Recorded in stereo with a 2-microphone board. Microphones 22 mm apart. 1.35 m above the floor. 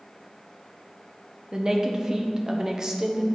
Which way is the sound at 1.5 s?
20° right (ahead or behind).